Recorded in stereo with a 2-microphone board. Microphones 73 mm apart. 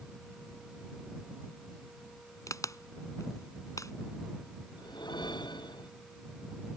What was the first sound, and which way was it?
A crack, 50° left (ahead or behind).